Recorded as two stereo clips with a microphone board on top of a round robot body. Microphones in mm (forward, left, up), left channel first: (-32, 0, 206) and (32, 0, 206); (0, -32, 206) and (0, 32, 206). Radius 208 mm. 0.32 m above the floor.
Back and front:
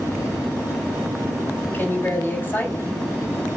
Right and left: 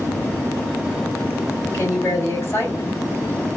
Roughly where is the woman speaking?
Behind right.